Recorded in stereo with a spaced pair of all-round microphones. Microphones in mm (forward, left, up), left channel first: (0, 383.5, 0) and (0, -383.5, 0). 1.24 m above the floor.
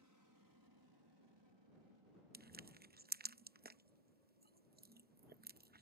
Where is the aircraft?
20° right (ahead or behind); by 5.8 s 65° right (ahead or behind).